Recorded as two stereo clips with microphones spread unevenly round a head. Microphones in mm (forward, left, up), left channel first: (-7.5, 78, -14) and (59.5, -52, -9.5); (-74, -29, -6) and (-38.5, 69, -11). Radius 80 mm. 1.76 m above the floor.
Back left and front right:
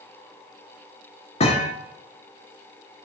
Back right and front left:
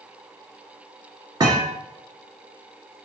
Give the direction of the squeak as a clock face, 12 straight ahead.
No squeak in this recording.